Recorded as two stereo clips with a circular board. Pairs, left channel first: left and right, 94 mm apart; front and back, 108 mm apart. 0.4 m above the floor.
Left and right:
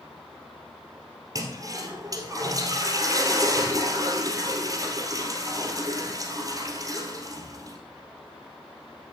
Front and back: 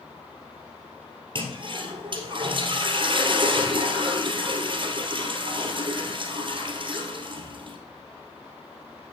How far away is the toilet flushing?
About 2 m.